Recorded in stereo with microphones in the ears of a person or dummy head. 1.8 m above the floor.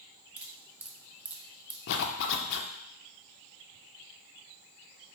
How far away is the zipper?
About 0.6 m.